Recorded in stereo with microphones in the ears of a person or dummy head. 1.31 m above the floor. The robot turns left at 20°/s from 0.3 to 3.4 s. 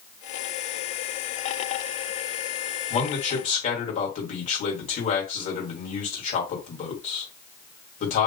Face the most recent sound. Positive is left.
turn(degrees=45)  # may be behind; listen again after turning